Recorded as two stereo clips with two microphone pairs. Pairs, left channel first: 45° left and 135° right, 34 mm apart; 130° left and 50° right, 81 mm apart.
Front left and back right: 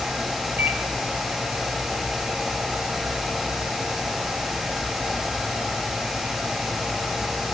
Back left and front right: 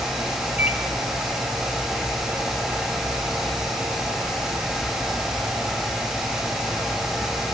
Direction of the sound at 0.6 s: 115° right.